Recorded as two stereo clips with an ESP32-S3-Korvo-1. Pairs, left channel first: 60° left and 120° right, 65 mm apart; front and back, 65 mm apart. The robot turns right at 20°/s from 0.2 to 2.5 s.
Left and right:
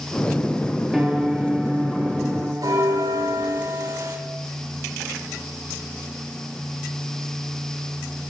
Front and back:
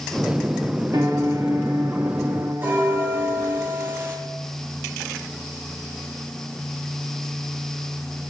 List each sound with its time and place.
0.9 s a piano: 155° left, 2.5 m; by 3.6 s 175° right, 2.5 m
2.6 s a bell: 120° right, 8 m